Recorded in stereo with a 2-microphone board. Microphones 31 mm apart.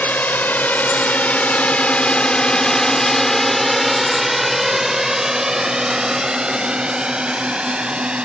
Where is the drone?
70° left (ahead or behind); by 8.2 s 35° right (ahead or behind).